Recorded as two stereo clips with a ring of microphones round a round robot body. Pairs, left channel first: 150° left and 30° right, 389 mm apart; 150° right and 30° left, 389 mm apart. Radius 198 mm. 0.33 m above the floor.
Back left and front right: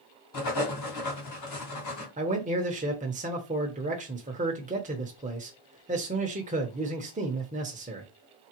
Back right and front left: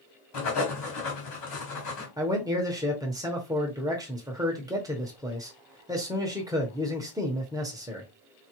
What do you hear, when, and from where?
0.3 s writing: straight behind, 3 m
2.2 s a man speaking: 30° right, 0.9 m